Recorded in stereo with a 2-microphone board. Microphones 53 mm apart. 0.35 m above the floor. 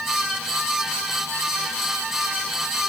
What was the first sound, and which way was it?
Only background noise.